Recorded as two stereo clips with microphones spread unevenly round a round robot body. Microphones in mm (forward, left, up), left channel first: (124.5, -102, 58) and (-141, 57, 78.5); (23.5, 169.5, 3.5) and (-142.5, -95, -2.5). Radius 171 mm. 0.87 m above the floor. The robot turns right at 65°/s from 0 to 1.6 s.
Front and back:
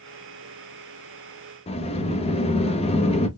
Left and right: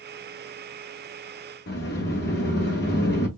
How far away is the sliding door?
About 0.8 m.